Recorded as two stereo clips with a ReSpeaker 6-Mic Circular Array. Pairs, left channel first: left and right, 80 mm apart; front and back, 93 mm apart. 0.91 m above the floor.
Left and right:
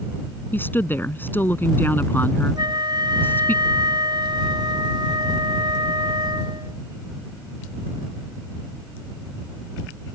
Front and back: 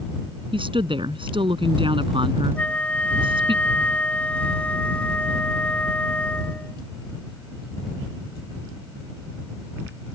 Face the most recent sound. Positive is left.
turn(degrees=-75)